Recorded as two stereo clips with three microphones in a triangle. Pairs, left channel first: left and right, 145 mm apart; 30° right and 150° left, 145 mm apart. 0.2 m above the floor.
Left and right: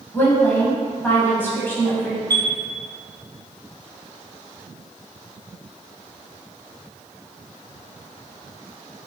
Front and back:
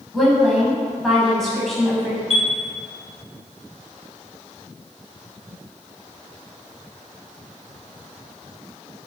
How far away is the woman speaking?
About 1.0 m.